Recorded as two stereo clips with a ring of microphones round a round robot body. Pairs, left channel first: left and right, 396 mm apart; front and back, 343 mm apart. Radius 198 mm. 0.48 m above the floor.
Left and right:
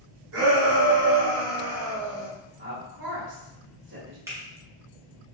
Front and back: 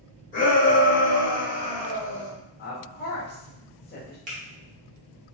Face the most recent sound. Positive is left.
turn(degrees=-160)